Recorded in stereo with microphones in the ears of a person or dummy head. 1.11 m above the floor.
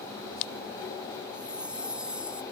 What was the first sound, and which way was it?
A chime, 10° right (ahead or behind).